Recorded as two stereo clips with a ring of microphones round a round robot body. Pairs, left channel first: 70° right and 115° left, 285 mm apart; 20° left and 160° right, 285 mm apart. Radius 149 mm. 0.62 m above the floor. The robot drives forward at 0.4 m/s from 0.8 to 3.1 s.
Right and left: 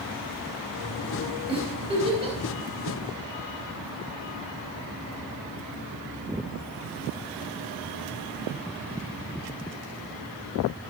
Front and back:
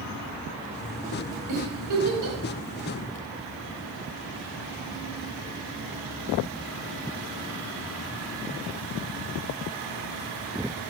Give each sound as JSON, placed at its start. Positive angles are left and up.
{"t": 1.5, "sound": "a giggle", "azimuth_deg": -175, "distance_m": 4.5}